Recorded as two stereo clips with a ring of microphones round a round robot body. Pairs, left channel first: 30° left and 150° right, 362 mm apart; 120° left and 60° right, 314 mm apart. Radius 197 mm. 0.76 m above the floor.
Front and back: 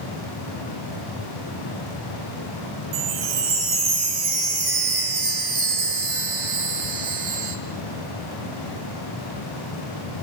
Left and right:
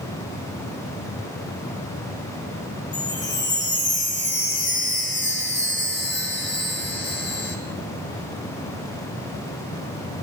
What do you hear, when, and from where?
2.9 s a chime: 175° right, 2 m